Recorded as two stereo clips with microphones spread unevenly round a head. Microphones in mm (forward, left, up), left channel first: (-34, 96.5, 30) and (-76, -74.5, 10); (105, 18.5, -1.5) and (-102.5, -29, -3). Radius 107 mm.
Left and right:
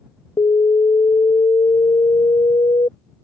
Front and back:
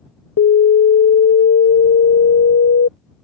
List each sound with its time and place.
0.4 s an alarm: 15° left